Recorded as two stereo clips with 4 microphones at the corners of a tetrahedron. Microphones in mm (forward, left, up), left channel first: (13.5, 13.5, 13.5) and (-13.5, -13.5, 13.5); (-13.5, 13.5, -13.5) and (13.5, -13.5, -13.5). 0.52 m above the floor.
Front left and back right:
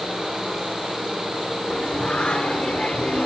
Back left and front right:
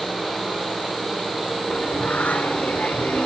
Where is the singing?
100° left, 1.6 m.